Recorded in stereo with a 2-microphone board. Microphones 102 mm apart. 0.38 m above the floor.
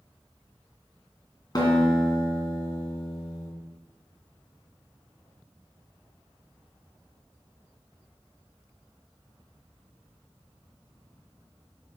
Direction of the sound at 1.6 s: 40° left (ahead or behind).